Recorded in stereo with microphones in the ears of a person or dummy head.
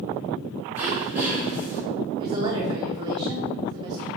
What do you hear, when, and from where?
0.8 s throat clearing: 15° right (ahead or behind), 2.5 m
2.2 s a woman speaking: 25° right (ahead or behind), 1.0 m